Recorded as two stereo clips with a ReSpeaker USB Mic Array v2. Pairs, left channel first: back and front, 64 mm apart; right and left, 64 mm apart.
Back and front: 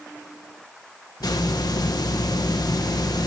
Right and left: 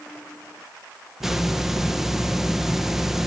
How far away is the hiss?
About 1.5 m.